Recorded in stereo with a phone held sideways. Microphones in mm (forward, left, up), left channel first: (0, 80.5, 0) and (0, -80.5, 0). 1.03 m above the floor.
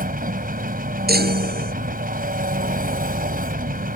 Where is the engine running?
65° right (ahead or behind).